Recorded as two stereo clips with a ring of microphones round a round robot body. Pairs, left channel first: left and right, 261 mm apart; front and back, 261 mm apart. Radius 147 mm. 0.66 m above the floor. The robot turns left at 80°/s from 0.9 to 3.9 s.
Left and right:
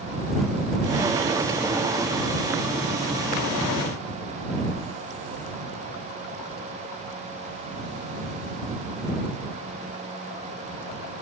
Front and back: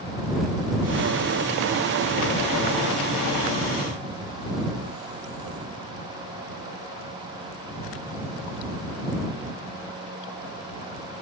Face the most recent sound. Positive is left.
No sound to turn to.